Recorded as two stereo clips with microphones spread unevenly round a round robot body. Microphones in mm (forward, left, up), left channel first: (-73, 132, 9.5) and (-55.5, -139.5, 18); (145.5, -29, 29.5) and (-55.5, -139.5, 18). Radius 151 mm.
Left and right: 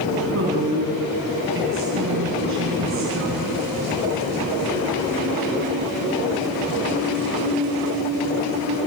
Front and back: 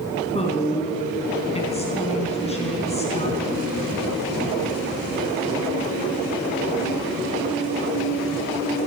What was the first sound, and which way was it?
A woman speaking, 35° right.